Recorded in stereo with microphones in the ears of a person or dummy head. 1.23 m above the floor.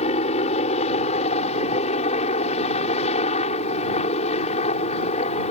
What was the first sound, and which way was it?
A helicopter, 35° left (ahead or behind).